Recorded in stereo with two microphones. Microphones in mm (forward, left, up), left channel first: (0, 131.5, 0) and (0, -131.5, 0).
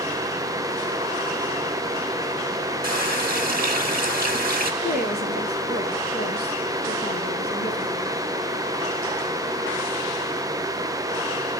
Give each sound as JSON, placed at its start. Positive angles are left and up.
{"t": 2.8, "sound": "a running tap", "side_deg": -35, "distance_m": 1.3}
{"t": 4.8, "sound": "a woman speaking", "side_deg": 35, "distance_m": 1.9}